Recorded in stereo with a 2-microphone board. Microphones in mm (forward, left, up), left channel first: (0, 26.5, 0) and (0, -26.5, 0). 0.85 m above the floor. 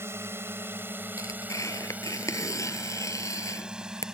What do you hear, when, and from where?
0.0 s a drone: 55° right (ahead or behind); by 4.1 s 10° right (ahead or behind)
1.2 s tearing paper: 90° left